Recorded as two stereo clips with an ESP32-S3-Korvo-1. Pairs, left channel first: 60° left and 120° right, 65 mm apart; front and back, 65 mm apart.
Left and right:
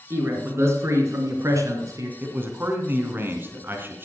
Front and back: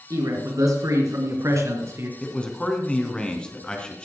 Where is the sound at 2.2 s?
70° right, 2.5 m.